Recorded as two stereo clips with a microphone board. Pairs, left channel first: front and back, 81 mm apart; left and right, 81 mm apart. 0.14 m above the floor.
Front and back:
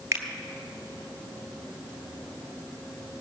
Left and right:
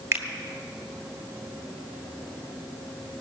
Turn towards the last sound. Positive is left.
turn(degrees=-135)